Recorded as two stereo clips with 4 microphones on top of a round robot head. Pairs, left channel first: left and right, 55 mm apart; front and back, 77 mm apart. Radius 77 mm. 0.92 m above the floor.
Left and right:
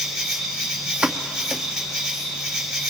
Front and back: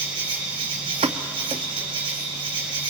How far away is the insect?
About 4.5 m.